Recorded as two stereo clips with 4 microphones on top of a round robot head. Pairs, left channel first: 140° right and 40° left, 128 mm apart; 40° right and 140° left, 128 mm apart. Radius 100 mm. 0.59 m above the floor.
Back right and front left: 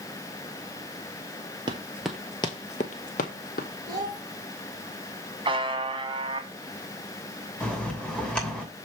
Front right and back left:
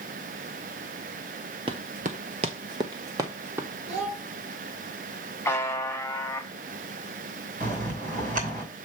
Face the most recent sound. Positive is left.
turn(degrees=140)